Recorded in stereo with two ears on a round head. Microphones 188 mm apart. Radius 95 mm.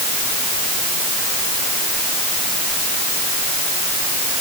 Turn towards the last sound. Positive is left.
No sound to turn to.